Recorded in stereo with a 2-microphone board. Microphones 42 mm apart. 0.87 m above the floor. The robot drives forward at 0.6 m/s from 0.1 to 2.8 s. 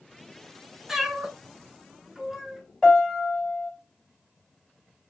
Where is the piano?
10° left (ahead or behind), 2.5 m.